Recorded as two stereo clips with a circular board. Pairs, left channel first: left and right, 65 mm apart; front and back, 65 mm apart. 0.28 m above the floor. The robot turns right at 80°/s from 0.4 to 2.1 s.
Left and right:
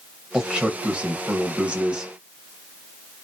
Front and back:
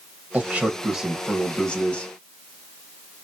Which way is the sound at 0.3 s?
160° right.